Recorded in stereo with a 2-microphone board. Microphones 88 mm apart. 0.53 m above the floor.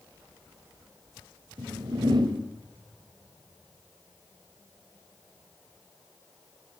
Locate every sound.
1.6 s a whoosh: 60° right (ahead or behind), 2.5 m